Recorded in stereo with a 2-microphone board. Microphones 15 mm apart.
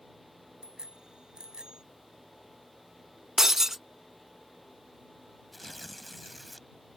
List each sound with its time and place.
0.6 s a bicycle bell: 65° right (ahead or behind); by 1.8 s 60° right (ahead or behind)
3.4 s breaking glass: 30° right (ahead or behind)
5.5 s tearing paper: 10° left (ahead or behind)